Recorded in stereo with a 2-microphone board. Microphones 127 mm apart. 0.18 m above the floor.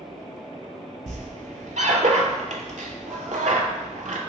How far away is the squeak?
About 0.6 m.